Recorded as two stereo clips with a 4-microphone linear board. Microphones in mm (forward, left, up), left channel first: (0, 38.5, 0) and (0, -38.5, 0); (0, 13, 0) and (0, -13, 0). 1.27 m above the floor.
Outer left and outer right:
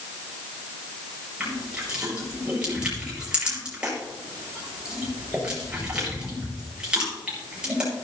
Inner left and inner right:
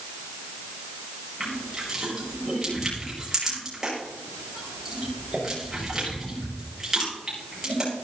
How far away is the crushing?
About 6.5 m.